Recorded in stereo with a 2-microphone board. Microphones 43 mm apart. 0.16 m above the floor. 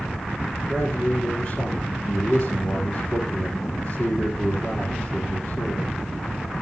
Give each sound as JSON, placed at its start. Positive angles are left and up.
{"t": 0.7, "sound": "a man speaking", "side_deg": 35, "distance_m": 3.0}